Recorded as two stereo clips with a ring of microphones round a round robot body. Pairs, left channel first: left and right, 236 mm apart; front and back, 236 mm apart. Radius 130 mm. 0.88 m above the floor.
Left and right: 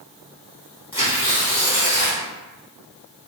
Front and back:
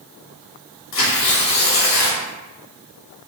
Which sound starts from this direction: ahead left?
Tearing paper, at 0.9 s.